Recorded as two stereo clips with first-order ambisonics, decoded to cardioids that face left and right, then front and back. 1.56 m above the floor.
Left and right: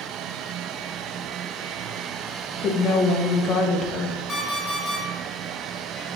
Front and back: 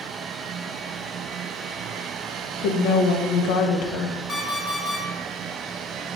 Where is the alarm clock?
30° left, 0.8 m.